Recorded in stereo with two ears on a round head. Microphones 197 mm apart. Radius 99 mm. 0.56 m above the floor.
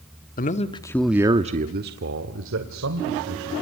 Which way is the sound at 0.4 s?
40° left (ahead or behind).